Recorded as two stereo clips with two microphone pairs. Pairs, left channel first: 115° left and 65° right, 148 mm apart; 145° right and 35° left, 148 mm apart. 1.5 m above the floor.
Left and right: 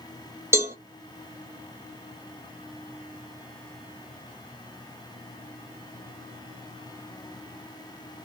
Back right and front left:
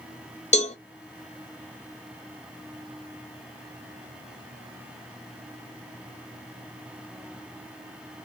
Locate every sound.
0.5 s a cowbell: 130° right, 1.4 m